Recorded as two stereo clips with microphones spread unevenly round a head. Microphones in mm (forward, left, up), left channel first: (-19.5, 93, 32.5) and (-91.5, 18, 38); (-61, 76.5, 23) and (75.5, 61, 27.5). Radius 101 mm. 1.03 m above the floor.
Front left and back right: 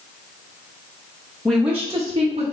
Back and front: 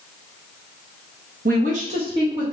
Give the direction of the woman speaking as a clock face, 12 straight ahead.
1 o'clock.